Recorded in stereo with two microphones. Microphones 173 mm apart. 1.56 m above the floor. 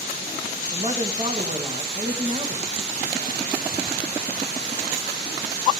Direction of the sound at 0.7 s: 35° right (ahead or behind).